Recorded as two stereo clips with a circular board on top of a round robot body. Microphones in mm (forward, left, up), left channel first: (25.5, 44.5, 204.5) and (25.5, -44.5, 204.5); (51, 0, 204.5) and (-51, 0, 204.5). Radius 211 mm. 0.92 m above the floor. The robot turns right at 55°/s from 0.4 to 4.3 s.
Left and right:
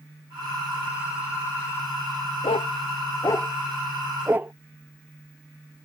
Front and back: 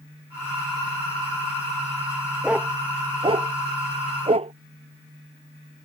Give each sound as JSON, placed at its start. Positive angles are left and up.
{"t": 2.4, "sound": "a dog barking", "azimuth_deg": 100}